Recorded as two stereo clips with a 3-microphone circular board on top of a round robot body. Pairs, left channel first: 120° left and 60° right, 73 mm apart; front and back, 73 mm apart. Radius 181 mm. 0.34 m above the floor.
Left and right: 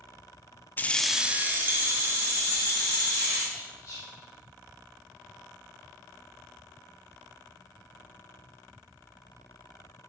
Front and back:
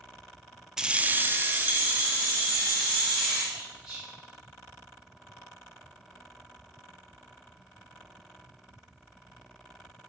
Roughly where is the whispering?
Left.